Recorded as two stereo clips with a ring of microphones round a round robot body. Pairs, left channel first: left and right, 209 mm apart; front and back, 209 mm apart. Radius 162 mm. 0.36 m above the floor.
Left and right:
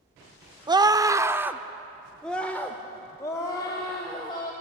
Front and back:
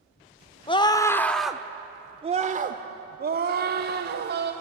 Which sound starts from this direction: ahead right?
A scream, at 0.7 s.